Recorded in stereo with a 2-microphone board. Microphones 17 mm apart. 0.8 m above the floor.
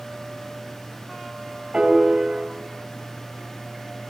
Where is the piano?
50° right (ahead or behind), 4 m.